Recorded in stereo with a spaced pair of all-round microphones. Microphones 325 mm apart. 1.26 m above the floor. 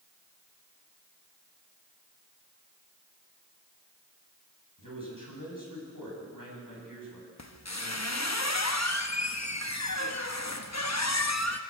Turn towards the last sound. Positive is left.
turn(degrees=55)  # may be behind; listen again after turning